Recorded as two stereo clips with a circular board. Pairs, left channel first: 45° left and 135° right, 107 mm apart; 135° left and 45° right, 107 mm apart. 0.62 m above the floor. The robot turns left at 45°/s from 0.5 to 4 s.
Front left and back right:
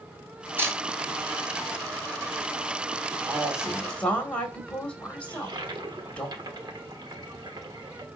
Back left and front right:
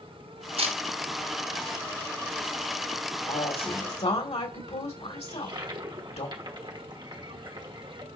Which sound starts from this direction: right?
A toilet flushing, at 5.3 s.